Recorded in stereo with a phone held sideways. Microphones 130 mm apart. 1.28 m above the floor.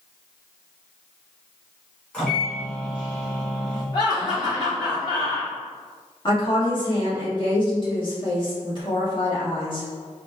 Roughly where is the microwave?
Centre.